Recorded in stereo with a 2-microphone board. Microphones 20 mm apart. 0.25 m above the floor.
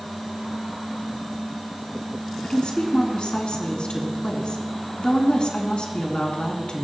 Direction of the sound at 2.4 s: 65° left (ahead or behind).